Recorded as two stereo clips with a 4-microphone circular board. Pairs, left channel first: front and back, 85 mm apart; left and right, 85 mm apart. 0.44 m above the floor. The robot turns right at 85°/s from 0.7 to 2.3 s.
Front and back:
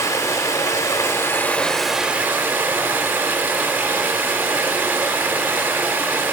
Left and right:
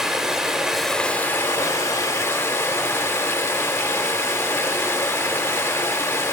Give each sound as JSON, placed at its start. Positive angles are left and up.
{"t": 0.0, "sound": "running water", "azimuth_deg": -10, "distance_m": 0.7}